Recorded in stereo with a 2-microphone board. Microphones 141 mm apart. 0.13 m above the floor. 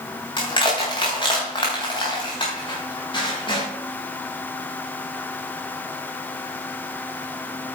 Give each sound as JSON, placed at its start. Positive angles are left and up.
{"t": 0.4, "sound": "crushing", "side_deg": 35, "distance_m": 5.0}